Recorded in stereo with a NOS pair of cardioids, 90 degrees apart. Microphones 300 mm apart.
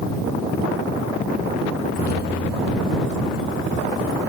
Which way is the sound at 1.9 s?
30° left.